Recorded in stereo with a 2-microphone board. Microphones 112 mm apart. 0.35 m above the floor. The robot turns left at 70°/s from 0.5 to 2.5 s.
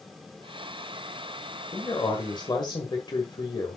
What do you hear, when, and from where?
1.7 s a man speaking: 135° left, 1.5 m; by 3.8 s 80° left, 1.5 m